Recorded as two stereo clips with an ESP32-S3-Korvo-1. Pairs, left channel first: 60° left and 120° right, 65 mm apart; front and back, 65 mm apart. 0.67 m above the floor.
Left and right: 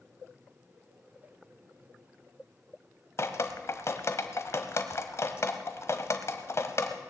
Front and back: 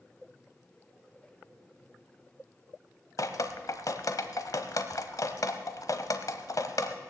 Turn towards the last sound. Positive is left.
turn(degrees=20)